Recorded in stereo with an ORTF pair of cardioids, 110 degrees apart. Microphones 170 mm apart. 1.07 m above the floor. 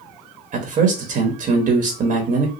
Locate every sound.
0.5 s a man speaking: 50° right, 1.4 m